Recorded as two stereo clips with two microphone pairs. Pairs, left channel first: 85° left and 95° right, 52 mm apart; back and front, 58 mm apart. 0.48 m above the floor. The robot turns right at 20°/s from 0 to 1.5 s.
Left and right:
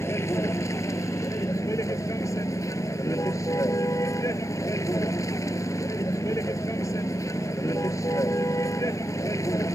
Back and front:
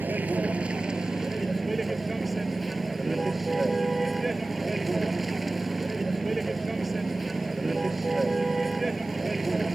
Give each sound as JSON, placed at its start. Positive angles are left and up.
{"t": 0.0, "sound": "a vehicle", "azimuth_deg": 55}